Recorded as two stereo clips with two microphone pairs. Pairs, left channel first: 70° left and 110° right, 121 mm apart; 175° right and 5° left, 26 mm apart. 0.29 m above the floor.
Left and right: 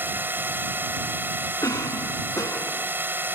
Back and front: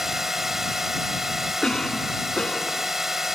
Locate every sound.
0.0 s a drone: 60° right
1.6 s a cough: 130° left